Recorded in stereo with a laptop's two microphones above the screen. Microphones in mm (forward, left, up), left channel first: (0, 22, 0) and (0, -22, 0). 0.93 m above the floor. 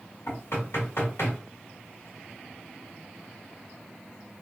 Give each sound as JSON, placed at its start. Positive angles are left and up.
{"t": 0.3, "sound": "knocking", "side_deg": 80, "distance_m": 1.5}